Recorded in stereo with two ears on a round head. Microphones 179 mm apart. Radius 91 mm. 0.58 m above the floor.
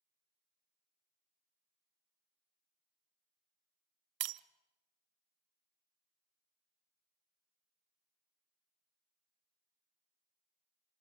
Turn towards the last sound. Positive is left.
turn(degrees=-55)  # may be behind; listen again after turning